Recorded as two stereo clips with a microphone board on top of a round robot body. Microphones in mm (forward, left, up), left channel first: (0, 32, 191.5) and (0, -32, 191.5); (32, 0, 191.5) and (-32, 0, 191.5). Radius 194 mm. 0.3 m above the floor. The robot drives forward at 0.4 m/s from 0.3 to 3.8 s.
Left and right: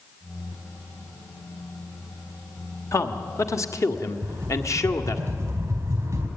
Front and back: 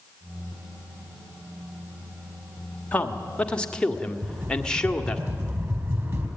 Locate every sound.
2.9 s a man speaking: 65° left, 1.9 m; by 5.2 s 75° left, 1.8 m
4.2 s a rattle: 135° right, 4.5 m